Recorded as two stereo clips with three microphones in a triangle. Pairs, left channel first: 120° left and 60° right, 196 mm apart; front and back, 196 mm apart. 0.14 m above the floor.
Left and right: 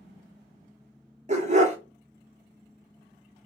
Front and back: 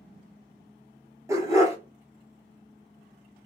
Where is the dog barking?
110° right, 1.1 m.